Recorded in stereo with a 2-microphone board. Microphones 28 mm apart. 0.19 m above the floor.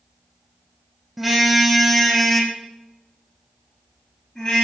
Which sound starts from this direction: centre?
A car horn, at 1.2 s.